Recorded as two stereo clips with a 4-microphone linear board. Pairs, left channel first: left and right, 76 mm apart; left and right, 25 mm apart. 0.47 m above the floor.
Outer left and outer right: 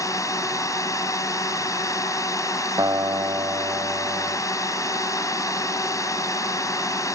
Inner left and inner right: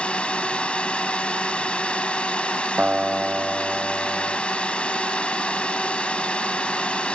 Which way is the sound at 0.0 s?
45° left (ahead or behind).